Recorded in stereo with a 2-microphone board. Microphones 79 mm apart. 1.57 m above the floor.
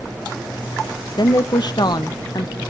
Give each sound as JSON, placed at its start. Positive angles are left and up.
{"t": 1.2, "sound": "a woman speaking", "side_deg": 65, "distance_m": 1.0}